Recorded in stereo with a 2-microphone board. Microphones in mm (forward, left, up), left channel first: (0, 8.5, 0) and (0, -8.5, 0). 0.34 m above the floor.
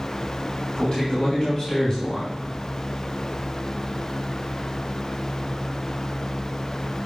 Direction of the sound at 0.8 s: 55° left (ahead or behind).